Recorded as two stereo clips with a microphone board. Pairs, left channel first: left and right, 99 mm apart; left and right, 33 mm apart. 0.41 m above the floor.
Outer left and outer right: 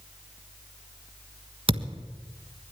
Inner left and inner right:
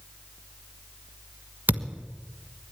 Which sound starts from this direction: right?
A thud, at 1.7 s.